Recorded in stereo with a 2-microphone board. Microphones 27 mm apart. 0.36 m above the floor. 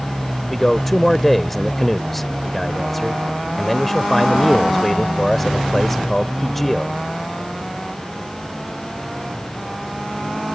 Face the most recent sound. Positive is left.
turn(degrees=10)  # may be behind; listen again after turning